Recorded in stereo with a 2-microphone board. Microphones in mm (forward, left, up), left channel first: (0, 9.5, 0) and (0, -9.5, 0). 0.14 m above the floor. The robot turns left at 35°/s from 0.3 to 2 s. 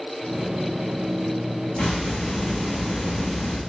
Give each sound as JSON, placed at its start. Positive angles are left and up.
{"t": 1.8, "sound": "a hiss", "side_deg": 75, "distance_m": 6.5}